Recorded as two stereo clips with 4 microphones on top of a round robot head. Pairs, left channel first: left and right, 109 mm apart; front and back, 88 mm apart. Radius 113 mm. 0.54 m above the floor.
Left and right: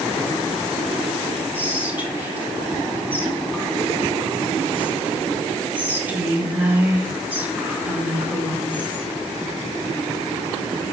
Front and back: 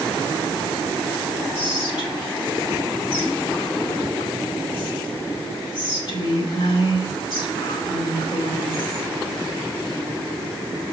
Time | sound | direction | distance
1.5 | whispering | 15° right | 3 m